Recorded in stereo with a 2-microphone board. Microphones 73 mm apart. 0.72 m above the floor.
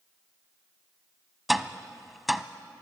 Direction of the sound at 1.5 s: Centre (ahead or behind).